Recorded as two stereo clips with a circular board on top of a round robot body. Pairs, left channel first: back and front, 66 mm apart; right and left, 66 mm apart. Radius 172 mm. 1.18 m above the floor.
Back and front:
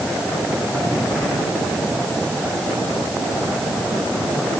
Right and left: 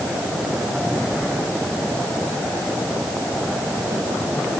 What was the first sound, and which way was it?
Only background noise.